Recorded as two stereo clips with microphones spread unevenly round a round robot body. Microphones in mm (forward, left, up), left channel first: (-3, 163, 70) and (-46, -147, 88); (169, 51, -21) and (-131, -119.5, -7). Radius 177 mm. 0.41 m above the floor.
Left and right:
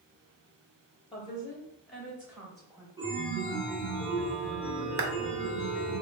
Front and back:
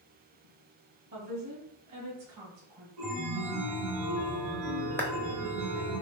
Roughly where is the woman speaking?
Behind left.